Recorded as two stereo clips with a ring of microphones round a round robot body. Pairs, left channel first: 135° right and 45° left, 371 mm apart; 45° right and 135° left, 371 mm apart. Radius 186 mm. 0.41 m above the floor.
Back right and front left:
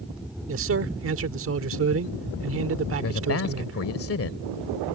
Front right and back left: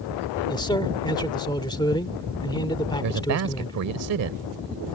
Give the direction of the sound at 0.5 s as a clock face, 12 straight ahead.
11 o'clock.